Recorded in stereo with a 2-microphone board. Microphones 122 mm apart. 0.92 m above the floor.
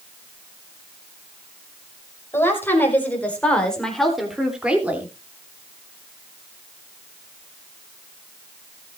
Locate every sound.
2.3 s a woman speaking: 20° left (ahead or behind), 5 m; by 5.1 s 15° right (ahead or behind), 3 m